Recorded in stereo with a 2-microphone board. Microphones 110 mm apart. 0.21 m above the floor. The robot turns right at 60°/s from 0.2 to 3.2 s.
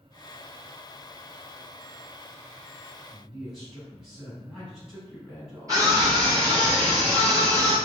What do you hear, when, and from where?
3.1 s a man speaking: 5° right (ahead or behind), 1.4 m
5.7 s a scream: 30° right (ahead or behind), 1.9 m